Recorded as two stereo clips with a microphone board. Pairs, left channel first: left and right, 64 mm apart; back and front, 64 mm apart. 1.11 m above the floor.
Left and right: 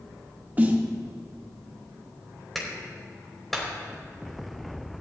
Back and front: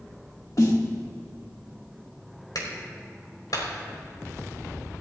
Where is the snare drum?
155° right, 1.7 m.